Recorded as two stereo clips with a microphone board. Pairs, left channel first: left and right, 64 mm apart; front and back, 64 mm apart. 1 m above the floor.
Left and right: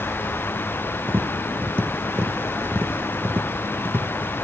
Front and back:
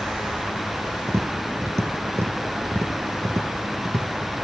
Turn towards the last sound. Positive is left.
turn(degrees=-145)